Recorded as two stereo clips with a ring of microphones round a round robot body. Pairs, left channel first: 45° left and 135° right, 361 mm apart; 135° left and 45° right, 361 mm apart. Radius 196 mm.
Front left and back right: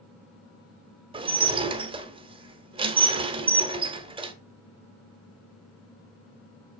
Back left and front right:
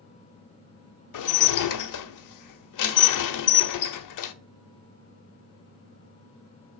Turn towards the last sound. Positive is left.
turn(degrees=150)